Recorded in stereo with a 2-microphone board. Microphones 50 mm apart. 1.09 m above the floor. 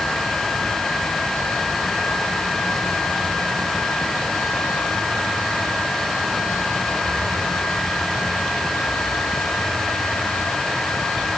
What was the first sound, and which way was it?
Only background noise.